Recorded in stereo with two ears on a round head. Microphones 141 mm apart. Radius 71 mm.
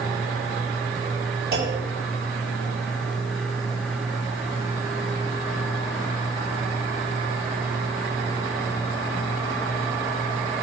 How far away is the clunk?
About 6 m.